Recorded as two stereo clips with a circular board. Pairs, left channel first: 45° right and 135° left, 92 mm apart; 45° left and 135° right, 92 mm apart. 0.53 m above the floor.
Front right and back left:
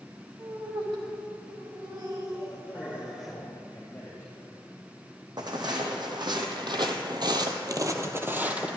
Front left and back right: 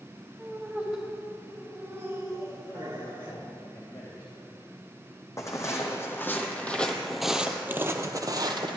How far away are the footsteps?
About 1.5 m.